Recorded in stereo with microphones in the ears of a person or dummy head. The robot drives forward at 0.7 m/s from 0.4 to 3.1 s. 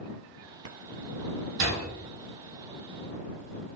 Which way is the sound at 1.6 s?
65° right (ahead or behind).